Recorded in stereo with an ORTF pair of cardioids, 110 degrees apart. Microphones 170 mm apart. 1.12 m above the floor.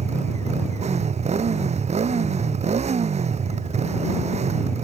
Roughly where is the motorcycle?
Ahead right.